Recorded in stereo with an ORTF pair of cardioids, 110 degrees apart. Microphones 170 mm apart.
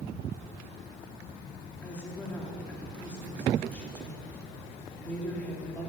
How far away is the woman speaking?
About 3 m.